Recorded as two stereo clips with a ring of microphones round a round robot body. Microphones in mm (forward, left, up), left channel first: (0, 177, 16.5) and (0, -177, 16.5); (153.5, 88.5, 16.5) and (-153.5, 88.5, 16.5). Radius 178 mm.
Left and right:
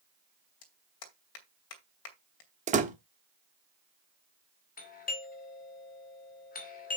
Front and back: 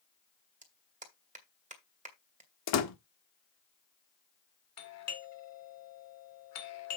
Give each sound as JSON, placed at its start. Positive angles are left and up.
{"t": 0.6, "sound": "a clap", "azimuth_deg": 115, "distance_m": 2.5}
{"t": 2.7, "sound": "a door slam", "azimuth_deg": -25, "distance_m": 1.2}
{"t": 4.8, "sound": "a doorbell", "azimuth_deg": 25, "distance_m": 2.0}